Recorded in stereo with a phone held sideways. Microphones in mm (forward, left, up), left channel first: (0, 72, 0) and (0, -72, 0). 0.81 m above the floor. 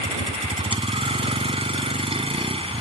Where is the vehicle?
40° right (ahead or behind).